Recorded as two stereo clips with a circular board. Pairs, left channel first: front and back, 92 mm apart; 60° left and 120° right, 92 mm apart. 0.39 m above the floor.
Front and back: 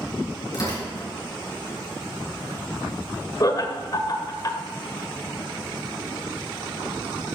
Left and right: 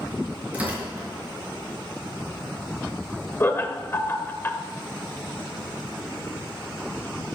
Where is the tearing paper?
45° right, 5.5 m.